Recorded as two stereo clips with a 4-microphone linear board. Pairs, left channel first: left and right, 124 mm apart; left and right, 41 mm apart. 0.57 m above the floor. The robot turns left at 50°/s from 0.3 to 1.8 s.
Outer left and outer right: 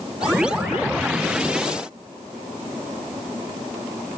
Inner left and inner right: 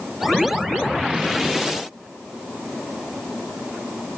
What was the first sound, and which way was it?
Only background noise.